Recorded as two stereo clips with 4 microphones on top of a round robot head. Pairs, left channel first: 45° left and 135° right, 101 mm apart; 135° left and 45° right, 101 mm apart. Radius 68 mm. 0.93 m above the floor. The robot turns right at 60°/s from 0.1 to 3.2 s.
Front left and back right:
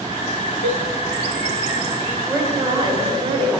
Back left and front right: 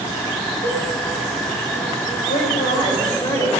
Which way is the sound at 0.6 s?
60° left.